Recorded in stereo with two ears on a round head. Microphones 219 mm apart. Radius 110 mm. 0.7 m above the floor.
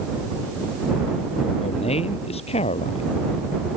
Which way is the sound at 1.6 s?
25° left (ahead or behind).